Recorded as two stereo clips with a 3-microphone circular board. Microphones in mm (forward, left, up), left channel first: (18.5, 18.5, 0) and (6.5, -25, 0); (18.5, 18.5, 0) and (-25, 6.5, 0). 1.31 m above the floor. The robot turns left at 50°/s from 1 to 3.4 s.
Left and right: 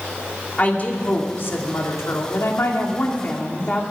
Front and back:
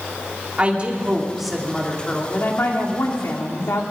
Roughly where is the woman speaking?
Behind left.